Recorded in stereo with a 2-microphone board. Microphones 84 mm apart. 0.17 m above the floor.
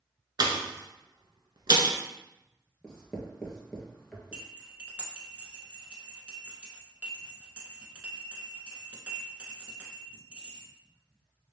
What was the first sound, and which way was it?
A pop, 60° right (ahead or behind).